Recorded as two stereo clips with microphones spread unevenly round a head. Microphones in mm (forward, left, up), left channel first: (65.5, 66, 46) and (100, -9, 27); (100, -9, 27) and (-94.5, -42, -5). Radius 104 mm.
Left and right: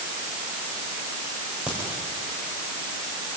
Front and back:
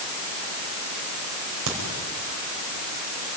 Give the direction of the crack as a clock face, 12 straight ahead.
5 o'clock.